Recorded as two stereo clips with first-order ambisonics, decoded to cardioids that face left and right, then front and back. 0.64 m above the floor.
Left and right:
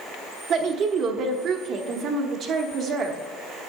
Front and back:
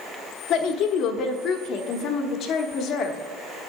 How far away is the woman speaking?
About 1.1 m.